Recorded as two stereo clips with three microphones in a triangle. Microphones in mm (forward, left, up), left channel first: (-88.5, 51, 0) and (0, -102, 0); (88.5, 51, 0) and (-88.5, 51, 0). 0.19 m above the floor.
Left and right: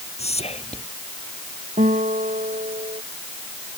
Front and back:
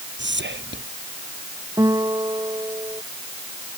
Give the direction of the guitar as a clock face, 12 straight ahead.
4 o'clock.